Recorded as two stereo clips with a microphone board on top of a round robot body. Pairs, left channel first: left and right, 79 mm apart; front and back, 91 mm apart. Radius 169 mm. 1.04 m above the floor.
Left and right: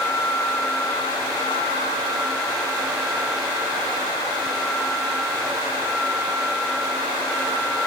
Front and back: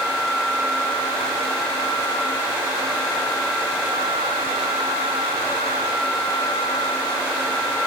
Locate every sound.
Only background noise.